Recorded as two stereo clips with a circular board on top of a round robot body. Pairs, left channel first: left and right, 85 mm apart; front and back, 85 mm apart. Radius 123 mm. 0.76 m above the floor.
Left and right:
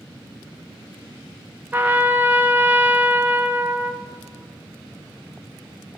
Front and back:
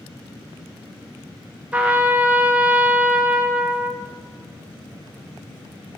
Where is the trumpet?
125° right, 0.8 m.